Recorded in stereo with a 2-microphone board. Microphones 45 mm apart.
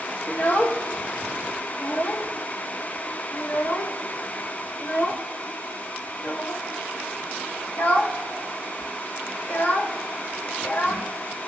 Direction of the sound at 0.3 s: 50° left (ahead or behind).